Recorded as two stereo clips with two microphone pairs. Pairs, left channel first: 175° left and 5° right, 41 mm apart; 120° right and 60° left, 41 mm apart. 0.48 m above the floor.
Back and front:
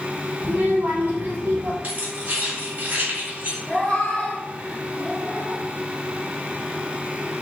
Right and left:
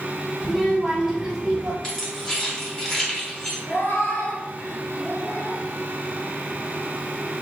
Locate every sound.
0.4 s a child speaking: 30° right, 1.5 m; by 1.7 s straight ahead, 1.1 m
1.8 s keys jangling: 50° right, 2.0 m
3.7 s a cat meowing: 120° right, 1.1 m